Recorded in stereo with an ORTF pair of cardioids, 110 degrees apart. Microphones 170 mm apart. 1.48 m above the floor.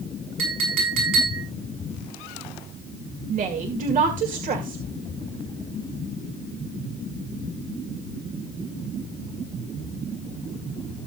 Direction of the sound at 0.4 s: 70° right.